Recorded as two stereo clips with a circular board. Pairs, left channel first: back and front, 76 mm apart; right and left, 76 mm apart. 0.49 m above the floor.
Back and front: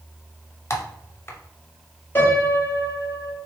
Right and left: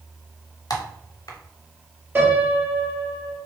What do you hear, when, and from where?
0.7 s typing on a keyboard: 125° right, 0.6 m
2.1 s a piano: 140° left, 1.5 m